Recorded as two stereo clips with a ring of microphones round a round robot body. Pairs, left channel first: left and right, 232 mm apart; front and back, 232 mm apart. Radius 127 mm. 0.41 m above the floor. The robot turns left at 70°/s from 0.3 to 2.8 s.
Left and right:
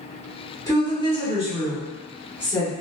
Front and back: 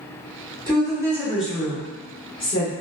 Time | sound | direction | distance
0.7 | a woman speaking | 145° left | 0.9 m